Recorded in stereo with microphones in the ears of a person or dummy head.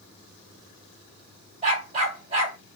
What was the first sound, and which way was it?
A dog barking, 40° right (ahead or behind).